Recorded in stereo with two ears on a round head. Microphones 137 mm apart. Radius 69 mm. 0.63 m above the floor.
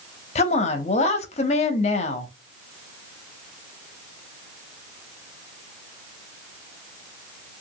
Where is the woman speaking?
45° left (ahead or behind), 0.7 m.